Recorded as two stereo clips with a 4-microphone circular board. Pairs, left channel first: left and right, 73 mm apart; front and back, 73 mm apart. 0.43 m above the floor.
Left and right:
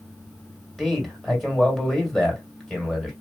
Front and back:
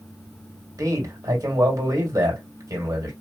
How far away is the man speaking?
About 2.0 m.